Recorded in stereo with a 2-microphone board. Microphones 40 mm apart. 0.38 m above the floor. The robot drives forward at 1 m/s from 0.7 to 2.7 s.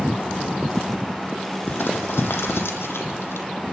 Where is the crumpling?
65° left (ahead or behind), 2.5 m; by 3.5 s 85° left, 2.5 m.